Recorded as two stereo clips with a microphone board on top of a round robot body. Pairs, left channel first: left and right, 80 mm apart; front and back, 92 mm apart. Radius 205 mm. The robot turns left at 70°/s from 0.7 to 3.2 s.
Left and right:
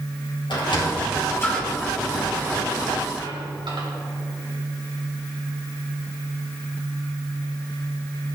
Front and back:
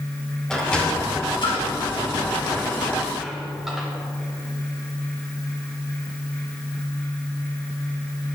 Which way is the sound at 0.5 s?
80° left.